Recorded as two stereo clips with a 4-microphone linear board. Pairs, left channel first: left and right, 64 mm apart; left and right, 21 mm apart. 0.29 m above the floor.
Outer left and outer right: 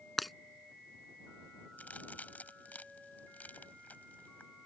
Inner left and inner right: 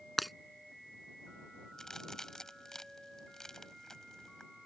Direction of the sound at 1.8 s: 25° left (ahead or behind).